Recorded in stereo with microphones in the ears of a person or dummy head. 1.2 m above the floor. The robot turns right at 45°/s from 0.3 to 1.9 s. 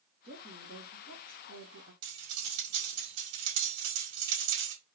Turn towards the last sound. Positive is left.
turn(degrees=-70)  # may be behind; listen again after turning